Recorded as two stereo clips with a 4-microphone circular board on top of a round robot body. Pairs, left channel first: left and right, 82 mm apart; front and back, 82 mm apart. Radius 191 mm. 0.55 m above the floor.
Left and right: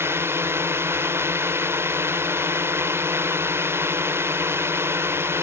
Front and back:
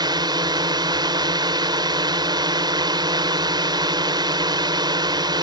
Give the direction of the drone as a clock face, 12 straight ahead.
5 o'clock.